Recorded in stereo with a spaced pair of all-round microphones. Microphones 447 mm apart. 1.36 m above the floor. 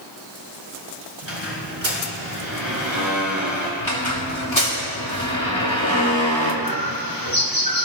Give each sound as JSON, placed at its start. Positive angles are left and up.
{"t": 1.2, "sound": "a squeak", "side_deg": -75, "distance_m": 4.0}
{"t": 3.8, "sound": "a squeak", "side_deg": 75, "distance_m": 2.5}
{"t": 6.6, "sound": "a bird", "side_deg": 45, "distance_m": 1.5}